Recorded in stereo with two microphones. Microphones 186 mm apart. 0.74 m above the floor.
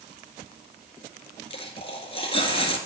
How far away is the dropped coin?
About 1.8 m.